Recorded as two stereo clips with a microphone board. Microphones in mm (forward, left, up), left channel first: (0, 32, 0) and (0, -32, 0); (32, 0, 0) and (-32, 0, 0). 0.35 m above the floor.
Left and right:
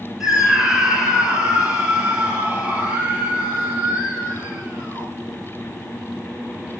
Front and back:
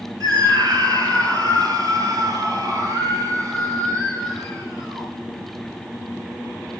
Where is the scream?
170° right, 5.5 m; by 5.1 s 145° right, 9.5 m.